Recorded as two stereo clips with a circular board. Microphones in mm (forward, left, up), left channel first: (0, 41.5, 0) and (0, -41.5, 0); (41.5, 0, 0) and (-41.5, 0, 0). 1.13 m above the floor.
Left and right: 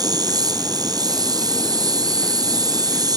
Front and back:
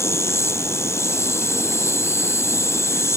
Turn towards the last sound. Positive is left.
turn(degrees=-55)